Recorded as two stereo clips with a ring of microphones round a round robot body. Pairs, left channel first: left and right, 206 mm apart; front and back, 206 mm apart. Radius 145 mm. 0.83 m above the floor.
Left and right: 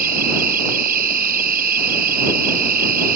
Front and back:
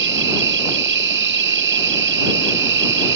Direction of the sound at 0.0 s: 145° right.